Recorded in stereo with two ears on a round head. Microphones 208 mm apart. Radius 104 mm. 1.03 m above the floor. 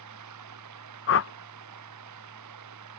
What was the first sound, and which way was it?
Running water, 85° right.